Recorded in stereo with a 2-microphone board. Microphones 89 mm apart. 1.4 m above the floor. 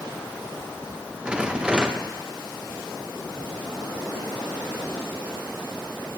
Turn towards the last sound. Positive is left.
turn(degrees=-10)  # may be behind; listen again after turning